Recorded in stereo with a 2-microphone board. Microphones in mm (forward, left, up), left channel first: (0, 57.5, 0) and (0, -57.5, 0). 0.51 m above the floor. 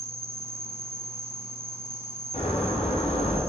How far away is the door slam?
About 3.5 m.